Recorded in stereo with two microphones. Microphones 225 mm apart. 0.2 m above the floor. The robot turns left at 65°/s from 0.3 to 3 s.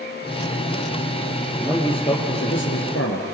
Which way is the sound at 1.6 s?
175° left.